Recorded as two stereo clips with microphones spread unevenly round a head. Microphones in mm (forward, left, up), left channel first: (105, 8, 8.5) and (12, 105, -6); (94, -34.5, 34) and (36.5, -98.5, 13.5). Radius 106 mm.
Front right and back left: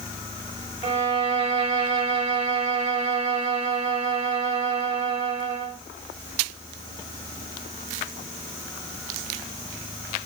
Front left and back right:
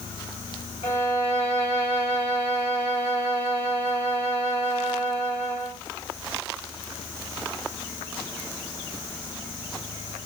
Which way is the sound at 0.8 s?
95° left.